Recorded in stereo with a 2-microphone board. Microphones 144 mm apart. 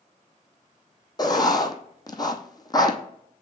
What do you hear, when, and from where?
1.2 s writing: 30° left (ahead or behind), 0.8 m